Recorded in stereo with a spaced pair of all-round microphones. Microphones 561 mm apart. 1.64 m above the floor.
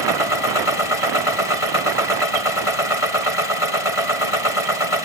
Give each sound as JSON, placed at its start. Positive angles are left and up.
{"t": 0.0, "sound": "a machine running", "side_deg": 65}